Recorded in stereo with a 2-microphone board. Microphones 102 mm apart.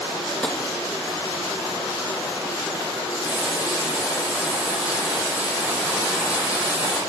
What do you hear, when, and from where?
0.4 s tapping: 10° left (ahead or behind), 1.0 m
3.2 s frying: 10° right (ahead or behind), 3.5 m